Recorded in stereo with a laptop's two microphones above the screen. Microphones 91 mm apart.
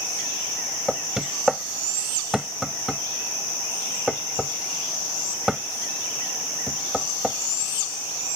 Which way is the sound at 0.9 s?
5° right (ahead or behind).